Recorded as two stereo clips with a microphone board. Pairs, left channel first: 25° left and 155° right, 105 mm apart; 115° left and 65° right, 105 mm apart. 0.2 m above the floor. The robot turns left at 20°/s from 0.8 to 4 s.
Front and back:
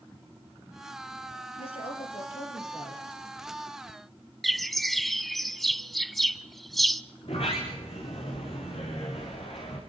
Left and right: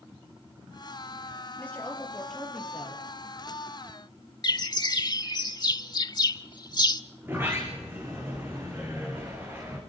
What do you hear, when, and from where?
1.6 s a woman speaking: 40° left, 5.5 m; by 3.0 s 10° left, 5.5 m
4.4 s a bird: 110° left, 0.6 m
7.2 s a sliding door: straight ahead, 7 m